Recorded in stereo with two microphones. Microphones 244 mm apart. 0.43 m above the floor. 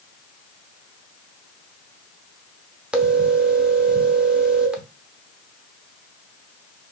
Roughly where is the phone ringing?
Centre.